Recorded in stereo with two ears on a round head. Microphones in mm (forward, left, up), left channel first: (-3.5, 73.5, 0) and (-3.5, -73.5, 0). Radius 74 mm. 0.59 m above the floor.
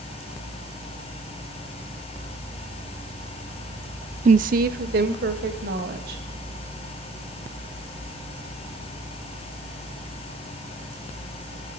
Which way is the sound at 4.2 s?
40° right (ahead or behind).